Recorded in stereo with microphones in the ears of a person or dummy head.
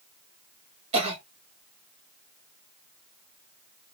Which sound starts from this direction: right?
A cough, at 0.9 s.